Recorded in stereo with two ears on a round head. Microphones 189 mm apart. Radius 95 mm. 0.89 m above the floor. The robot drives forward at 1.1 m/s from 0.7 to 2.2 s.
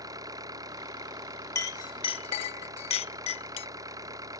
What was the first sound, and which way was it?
An engine running, 20° right (ahead or behind).